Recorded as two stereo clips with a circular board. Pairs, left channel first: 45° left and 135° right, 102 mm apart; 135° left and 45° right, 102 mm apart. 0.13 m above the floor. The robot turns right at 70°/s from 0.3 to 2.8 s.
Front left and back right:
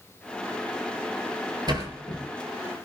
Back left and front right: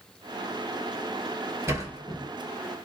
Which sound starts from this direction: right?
A sliding door, at 1.7 s.